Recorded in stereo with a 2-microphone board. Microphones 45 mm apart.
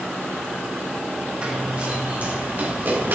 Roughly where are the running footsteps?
Right.